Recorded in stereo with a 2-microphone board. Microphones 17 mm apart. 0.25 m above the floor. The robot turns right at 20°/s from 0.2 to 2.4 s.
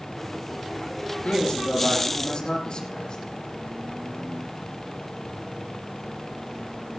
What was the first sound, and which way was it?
A man speaking, 80° left.